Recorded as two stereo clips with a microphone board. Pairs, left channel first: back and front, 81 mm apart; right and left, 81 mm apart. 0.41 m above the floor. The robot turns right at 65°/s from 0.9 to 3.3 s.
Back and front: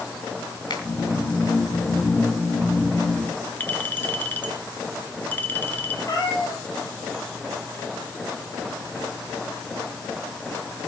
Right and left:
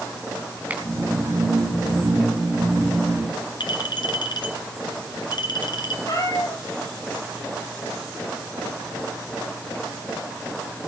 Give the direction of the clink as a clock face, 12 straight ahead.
4 o'clock.